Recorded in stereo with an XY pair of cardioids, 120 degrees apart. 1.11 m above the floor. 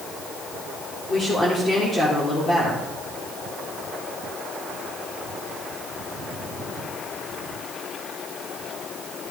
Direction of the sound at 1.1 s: 35° left.